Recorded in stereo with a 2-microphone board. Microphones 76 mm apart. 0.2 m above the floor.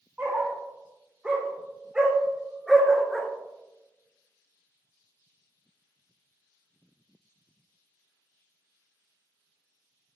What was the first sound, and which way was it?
A dog barking, 20° right (ahead or behind).